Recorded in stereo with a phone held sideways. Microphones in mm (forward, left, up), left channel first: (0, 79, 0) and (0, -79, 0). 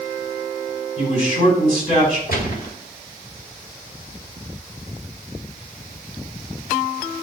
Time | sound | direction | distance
1.0 | a man speaking | 50° left (ahead or behind) | 5 m
2.3 | a gunshot | 65° left (ahead or behind) | 1.8 m